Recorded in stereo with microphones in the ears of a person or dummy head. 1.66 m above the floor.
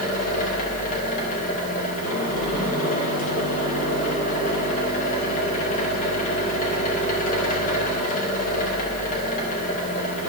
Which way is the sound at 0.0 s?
40° left (ahead or behind).